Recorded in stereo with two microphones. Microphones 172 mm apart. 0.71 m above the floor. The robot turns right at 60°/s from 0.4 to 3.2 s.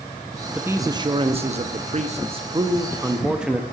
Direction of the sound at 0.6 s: 165° right.